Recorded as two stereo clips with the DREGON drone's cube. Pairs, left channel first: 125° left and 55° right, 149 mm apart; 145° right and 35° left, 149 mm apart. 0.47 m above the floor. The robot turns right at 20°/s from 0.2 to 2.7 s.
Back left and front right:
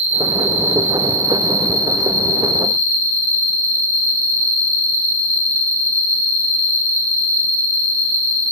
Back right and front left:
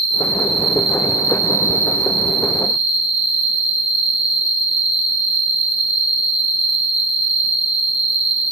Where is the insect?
100° right, 0.7 m; by 8.5 s 50° right, 0.7 m.